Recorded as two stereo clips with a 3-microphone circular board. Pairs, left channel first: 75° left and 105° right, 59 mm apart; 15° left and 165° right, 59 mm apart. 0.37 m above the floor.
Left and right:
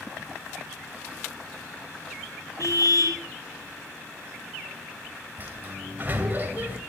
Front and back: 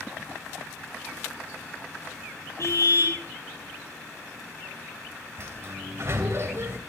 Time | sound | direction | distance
2.6 | a car horn | 50° left | 5.5 m
5.4 | a sliding door | 155° right | 2 m